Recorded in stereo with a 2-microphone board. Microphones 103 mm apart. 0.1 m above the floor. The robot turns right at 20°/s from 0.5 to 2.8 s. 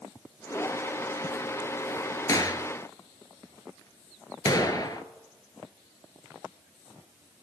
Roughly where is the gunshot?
Left.